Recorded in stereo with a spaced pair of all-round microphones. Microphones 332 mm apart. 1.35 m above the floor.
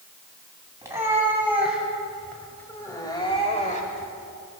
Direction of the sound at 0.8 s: 10° right (ahead or behind).